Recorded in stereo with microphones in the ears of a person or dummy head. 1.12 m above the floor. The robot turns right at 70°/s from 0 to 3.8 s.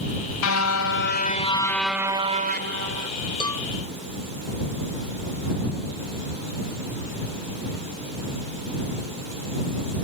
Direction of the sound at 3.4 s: 25° left (ahead or behind).